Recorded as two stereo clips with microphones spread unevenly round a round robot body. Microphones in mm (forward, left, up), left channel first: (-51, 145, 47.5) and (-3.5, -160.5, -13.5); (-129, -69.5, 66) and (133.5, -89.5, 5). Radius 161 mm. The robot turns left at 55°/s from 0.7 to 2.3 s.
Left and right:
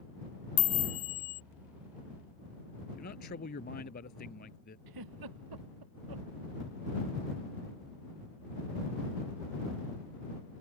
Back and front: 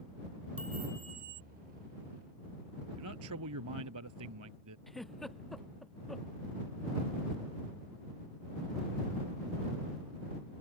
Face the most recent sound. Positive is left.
turn(degrees=-95)